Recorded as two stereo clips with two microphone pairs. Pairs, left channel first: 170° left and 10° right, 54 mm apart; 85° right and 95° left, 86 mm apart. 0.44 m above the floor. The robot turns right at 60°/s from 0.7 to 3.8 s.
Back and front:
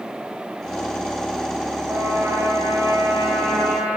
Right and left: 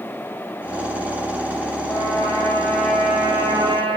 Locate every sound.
1.9 s a trumpet: 55° right, 10 m; by 4.0 s 60° left, 10 m